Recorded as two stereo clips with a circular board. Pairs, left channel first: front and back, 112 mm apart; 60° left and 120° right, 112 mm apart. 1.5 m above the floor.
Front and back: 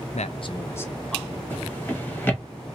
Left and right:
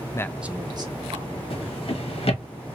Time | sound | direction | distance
0.1 | a man speaking | straight ahead | 0.5 m
1.5 | a drawer | 70° left | 1.2 m